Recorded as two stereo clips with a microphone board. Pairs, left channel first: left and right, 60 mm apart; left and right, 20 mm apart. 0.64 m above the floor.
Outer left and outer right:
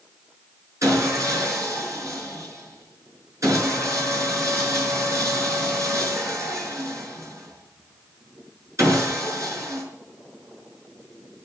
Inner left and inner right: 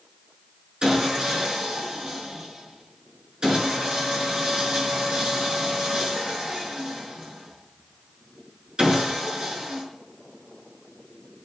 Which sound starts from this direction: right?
Sawing, at 0.8 s.